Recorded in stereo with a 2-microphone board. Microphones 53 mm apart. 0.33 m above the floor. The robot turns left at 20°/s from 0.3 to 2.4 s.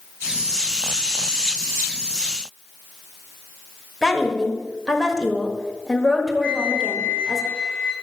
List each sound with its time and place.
4.0 s a woman speaking: 5° left (ahead or behind), 1.2 m
6.4 s a flute: 15° right (ahead or behind), 1.4 m